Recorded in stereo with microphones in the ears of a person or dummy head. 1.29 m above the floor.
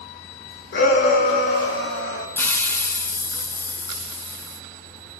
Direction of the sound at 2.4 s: 15° left (ahead or behind).